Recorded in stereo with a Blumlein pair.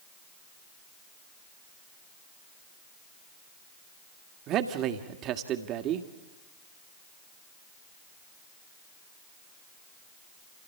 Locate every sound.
4.5 s a man speaking: 35° right, 2 m